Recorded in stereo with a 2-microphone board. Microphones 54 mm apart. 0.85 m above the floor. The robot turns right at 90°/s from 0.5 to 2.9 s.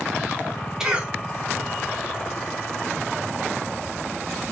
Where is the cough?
10° right (ahead or behind), 1.9 m; by 1.1 s 40° right (ahead or behind), 1.9 m.